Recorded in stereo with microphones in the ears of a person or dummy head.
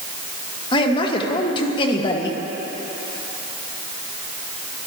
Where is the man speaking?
30° left (ahead or behind), 1.4 m.